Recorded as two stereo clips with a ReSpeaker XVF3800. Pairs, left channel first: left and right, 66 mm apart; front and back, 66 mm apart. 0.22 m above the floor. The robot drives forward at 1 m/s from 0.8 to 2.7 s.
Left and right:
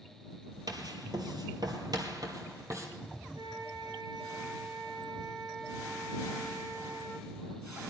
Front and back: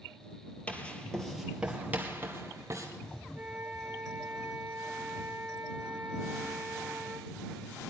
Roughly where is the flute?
Right.